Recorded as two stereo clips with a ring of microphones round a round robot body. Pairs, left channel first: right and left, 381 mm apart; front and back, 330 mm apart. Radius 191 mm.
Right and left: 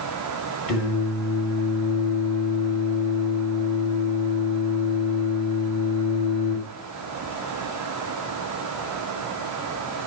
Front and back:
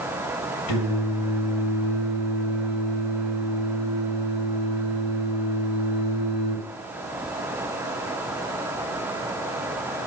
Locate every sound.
0.7 s singing: 35° right, 4 m